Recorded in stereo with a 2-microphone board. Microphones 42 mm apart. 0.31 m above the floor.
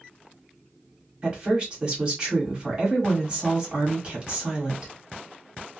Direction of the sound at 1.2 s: 25° right (ahead or behind).